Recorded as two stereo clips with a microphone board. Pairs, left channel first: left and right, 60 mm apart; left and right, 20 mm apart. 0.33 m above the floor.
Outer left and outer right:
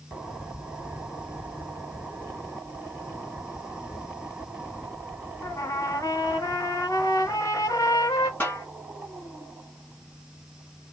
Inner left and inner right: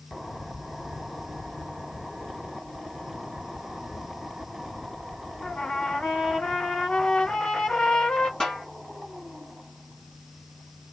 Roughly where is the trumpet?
Left.